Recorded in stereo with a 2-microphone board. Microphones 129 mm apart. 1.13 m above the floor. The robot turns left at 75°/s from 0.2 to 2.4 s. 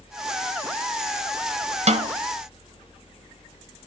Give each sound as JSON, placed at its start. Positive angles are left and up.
{"t": 1.9, "sound": "a snare drum", "side_deg": -55, "distance_m": 1.3}